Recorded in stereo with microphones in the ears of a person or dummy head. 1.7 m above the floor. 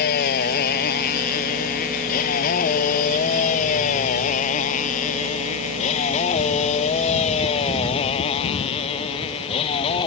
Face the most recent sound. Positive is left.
turn(degrees=30)  # may be behind; listen again after turning